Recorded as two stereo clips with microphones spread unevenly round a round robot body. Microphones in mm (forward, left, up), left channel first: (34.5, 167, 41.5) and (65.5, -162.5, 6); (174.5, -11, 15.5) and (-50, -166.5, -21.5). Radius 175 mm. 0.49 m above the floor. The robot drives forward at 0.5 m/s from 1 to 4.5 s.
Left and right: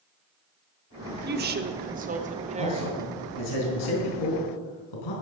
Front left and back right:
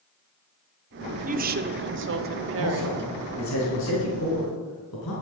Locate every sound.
1.2 s a woman speaking: 115° right, 1.0 m; by 3.0 s 155° right, 1.5 m
2.6 s a man speaking: 75° left, 5 m; by 5.1 s 85° left, 5 m